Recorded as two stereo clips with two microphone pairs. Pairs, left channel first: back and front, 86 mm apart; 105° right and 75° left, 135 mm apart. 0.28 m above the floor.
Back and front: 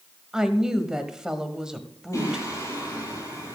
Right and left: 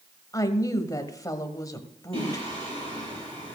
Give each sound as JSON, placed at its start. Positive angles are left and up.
{"t": 0.3, "sound": "a woman speaking", "azimuth_deg": -75, "distance_m": 1.1}
{"t": 2.1, "sound": "singing", "azimuth_deg": 120, "distance_m": 8.0}